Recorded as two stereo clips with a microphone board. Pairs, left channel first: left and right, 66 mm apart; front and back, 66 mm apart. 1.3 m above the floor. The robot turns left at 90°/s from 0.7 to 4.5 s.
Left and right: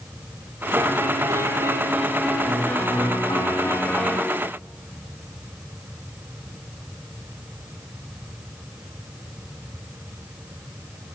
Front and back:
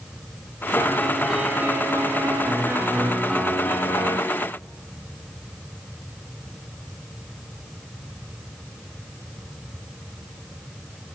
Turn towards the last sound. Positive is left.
turn(degrees=-20)